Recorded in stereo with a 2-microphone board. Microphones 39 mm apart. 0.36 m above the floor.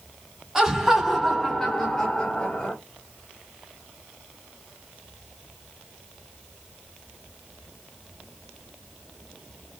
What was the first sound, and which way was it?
Laughter, 10° right (ahead or behind).